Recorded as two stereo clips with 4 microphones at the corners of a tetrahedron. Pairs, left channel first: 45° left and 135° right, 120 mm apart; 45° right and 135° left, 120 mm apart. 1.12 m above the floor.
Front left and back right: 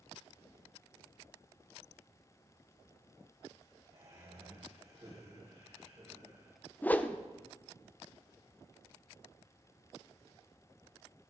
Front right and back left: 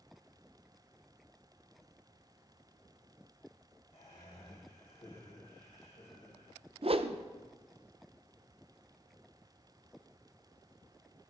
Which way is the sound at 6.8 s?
120° left.